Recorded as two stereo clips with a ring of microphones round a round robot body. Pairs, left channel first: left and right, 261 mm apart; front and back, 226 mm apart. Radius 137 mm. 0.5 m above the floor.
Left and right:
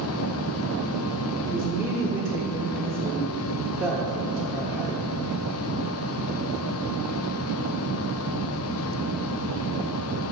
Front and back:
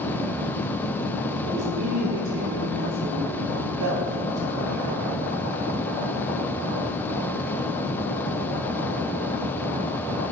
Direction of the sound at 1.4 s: Straight behind.